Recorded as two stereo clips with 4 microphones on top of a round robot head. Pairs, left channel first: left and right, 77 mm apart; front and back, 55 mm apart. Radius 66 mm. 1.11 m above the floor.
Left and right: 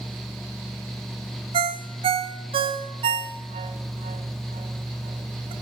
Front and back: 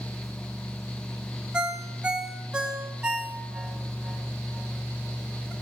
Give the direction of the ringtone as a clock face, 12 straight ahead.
3 o'clock.